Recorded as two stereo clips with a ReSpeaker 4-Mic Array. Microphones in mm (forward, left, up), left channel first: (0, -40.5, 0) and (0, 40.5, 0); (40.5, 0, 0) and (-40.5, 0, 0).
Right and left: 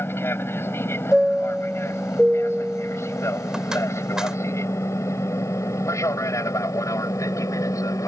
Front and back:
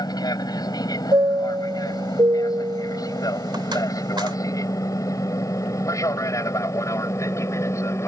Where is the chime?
170° left.